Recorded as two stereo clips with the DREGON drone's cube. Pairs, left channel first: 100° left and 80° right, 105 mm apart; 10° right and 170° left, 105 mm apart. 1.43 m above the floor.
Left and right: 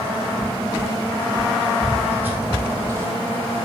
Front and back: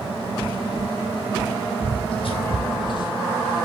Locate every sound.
1.8 s footsteps: 5° right, 3 m; by 3.7 s 55° right, 1.8 m